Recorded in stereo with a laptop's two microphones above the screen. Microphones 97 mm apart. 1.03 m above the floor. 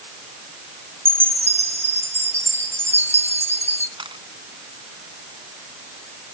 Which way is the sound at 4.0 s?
55° right (ahead or behind).